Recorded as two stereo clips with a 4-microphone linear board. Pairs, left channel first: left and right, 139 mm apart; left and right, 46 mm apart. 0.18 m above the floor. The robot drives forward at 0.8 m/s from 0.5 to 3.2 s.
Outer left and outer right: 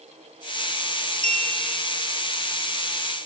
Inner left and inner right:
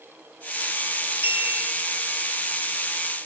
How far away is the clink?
About 1.9 m.